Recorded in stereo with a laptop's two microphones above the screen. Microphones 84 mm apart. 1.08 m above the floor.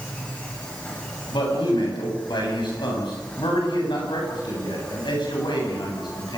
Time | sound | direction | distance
0.0 | an insect | 15° left (ahead or behind) | 9.5 m
1.3 | a man speaking | 70° left (ahead or behind) | 9 m